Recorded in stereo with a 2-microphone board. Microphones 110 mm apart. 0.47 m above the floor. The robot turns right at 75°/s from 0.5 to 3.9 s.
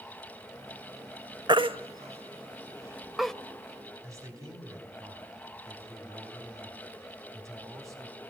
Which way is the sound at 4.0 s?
30° right (ahead or behind).